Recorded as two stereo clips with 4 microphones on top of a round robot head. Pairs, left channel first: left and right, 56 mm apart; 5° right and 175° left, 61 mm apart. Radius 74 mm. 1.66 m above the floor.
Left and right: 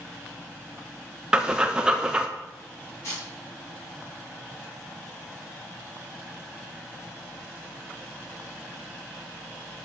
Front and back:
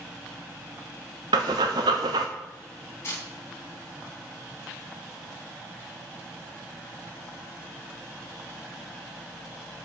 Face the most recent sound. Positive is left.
turn(degrees=40)